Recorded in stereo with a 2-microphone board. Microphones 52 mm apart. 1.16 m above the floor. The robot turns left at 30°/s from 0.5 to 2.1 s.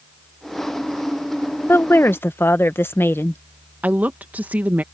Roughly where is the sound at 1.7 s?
Left.